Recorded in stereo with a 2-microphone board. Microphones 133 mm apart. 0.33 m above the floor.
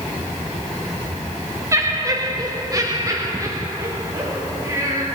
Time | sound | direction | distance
1.7 | laughter | 25° right (ahead or behind) | 1.0 m